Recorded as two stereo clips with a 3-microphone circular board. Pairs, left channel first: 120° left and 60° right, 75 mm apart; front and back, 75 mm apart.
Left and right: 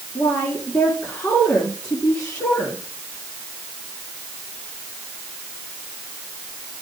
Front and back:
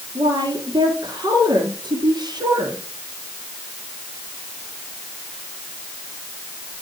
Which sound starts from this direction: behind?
A woman speaking, at 0.1 s.